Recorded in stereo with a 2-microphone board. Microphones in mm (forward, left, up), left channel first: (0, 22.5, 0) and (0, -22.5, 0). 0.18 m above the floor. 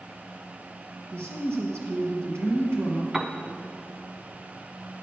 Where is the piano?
10° right (ahead or behind), 0.6 m.